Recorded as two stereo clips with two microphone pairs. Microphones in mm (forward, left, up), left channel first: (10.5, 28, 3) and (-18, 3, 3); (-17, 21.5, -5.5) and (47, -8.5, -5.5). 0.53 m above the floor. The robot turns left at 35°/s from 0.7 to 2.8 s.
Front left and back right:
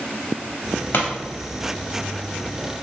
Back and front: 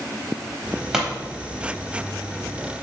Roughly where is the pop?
Ahead left.